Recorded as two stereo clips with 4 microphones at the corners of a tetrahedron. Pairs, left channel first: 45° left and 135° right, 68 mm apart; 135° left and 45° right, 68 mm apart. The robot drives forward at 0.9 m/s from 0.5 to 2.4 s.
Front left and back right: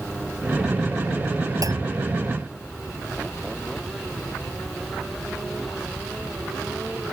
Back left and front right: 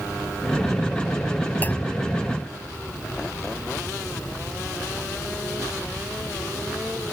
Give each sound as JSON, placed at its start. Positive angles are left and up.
{"t": 1.6, "sound": "a clunk", "azimuth_deg": -160}